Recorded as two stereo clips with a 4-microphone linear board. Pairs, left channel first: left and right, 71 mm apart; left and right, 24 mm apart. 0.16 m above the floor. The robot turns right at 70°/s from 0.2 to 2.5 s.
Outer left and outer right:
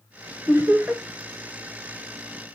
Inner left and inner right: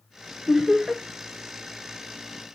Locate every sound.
0.5 s laughter: 55° right, 1.8 m; by 1.0 s 15° right, 1.8 m